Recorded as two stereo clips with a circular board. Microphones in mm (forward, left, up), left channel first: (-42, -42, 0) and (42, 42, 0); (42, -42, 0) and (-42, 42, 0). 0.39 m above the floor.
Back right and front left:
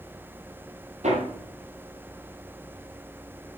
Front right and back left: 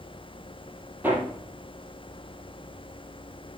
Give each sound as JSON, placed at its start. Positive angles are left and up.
{"t": 1.0, "sound": "hammering", "azimuth_deg": 60, "distance_m": 4.0}